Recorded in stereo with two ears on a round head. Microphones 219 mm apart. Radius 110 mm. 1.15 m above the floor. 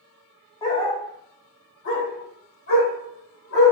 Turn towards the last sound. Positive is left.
turn(degrees=70)  # may be behind; listen again after turning